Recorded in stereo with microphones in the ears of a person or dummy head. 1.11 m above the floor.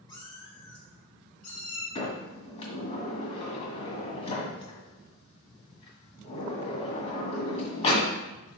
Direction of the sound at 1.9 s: 35° left (ahead or behind).